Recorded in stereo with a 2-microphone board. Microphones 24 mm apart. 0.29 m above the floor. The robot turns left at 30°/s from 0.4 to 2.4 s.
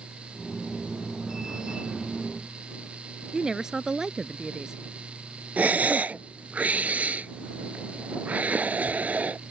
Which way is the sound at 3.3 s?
25° right (ahead or behind).